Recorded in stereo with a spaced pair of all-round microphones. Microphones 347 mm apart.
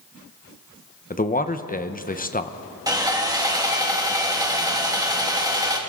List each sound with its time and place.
1.1 s a man speaking: 25° left (ahead or behind), 0.7 m
2.9 s sawing: 10° right (ahead or behind), 1.7 m